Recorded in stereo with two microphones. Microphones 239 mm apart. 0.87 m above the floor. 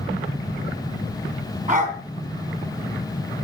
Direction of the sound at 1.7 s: 35° right (ahead or behind).